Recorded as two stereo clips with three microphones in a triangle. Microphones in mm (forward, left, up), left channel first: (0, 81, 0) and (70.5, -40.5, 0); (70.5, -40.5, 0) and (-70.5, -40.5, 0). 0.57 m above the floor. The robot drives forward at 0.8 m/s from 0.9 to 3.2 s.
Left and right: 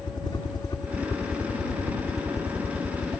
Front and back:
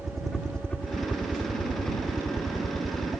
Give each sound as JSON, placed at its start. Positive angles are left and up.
{"t": 0.0, "sound": "a helicopter", "azimuth_deg": 90}